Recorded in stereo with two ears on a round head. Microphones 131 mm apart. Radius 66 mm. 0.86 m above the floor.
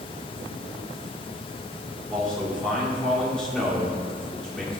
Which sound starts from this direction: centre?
A man speaking, at 2.1 s.